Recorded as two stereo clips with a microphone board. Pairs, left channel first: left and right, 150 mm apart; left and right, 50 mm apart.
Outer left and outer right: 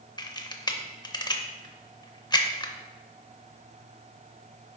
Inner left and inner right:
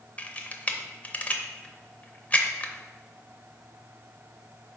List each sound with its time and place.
0.2 s a camera shutter: 25° left (ahead or behind), 0.6 m